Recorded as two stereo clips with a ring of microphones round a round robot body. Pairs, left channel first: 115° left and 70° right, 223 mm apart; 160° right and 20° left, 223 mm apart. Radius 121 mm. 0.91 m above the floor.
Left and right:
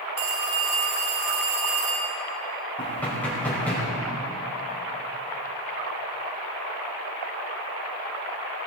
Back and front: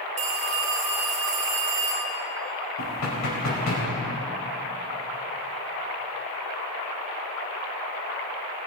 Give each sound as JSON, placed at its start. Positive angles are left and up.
{"t": 0.2, "sound": "a phone ringing", "azimuth_deg": -40, "distance_m": 3.0}
{"t": 2.8, "sound": "knocking", "azimuth_deg": -165, "distance_m": 5.0}